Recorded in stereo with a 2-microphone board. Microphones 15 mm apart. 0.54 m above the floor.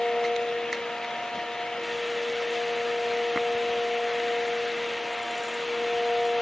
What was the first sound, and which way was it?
Only background noise.